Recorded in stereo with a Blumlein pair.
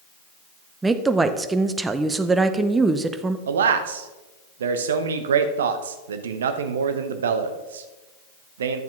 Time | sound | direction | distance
0.8 | a woman speaking | 10° right | 0.7 m
3.5 | a man speaking | 65° right | 0.9 m